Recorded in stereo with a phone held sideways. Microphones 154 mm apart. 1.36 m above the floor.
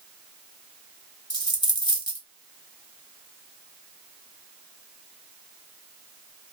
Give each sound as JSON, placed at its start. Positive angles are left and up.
{"t": 1.3, "sound": "a dropped coin", "side_deg": 30, "distance_m": 1.0}